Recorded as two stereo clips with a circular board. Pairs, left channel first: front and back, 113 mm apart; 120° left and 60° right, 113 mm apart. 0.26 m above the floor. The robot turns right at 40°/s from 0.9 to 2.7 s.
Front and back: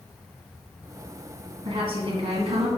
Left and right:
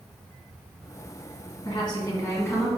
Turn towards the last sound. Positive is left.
turn(degrees=-165)